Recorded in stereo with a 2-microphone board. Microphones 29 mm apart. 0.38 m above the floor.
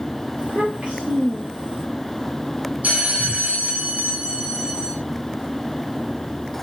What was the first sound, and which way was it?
A child speaking, 50° right (ahead or behind).